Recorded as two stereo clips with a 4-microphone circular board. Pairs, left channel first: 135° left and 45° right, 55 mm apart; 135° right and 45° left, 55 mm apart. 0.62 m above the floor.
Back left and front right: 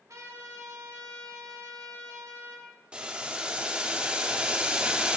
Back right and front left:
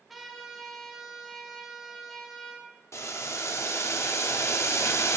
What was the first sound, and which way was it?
A trumpet, 45° right.